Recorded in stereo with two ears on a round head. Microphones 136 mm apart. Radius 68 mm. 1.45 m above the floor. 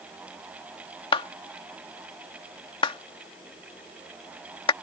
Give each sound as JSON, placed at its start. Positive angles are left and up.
{"t": 1.1, "sound": "a clap", "side_deg": 35}